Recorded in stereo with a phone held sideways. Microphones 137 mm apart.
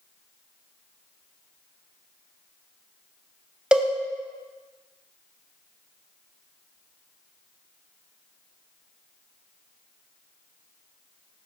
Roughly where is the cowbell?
Centre.